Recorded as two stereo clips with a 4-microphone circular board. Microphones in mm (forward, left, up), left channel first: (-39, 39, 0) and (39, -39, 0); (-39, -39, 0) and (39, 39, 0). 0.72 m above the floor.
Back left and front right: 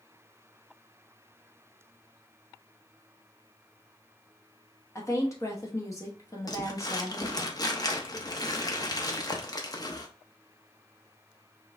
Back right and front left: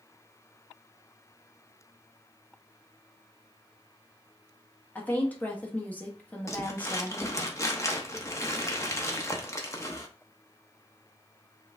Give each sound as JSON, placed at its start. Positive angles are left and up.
{"t": 5.0, "sound": "a woman speaking", "azimuth_deg": 165, "distance_m": 1.0}
{"t": 6.5, "sound": "crumpling", "azimuth_deg": 175, "distance_m": 0.8}